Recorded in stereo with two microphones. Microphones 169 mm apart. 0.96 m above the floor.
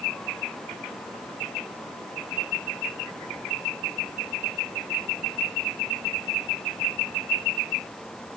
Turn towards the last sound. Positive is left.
No sound to turn to.